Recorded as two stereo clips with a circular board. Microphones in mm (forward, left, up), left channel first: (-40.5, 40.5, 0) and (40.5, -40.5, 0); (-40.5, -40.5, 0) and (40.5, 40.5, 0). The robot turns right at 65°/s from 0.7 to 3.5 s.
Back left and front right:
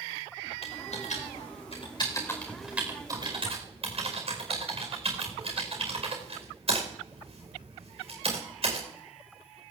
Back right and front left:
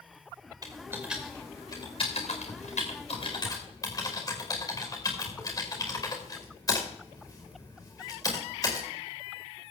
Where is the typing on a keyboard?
105° left, 4.5 m; by 8.9 s 75° right, 4.5 m.